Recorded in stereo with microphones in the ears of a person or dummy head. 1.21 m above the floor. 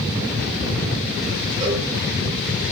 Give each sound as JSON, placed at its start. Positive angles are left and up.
{"t": 1.6, "sound": "a cowbell", "side_deg": -25, "distance_m": 6.0}